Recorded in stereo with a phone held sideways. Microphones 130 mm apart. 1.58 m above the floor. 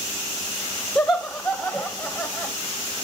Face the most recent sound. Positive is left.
turn(degrees=25)  # may be behind; listen again after turning